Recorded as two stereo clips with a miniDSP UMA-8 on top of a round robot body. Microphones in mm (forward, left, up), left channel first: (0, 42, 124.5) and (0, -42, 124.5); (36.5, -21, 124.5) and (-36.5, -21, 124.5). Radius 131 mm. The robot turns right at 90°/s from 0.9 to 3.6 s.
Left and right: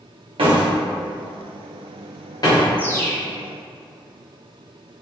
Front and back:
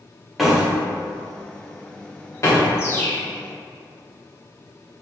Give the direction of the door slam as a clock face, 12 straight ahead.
3 o'clock.